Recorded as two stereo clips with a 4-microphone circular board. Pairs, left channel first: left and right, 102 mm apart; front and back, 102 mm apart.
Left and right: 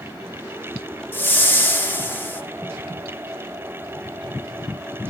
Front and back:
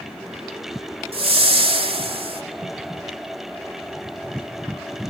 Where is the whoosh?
160° left, 1.1 m.